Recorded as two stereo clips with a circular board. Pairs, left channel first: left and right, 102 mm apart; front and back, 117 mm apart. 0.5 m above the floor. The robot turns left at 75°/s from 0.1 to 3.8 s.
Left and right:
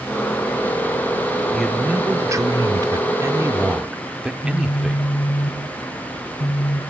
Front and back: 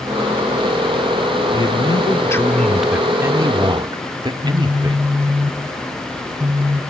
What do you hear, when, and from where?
1.5 s a man speaking: 5° left, 1.0 m; by 5.2 s 165° right, 1.0 m
4.4 s a phone buzzing: 105° left, 1.8 m